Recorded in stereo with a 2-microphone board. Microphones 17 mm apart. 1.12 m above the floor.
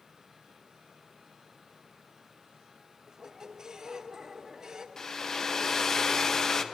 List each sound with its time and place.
3.1 s a squeak: 35° right (ahead or behind), 0.7 m
5.0 s a hair dryer: 30° left (ahead or behind), 0.6 m